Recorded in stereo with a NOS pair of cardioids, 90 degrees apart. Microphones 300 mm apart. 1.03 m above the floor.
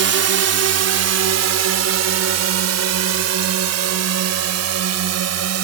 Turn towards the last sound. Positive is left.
turn(degrees=-65)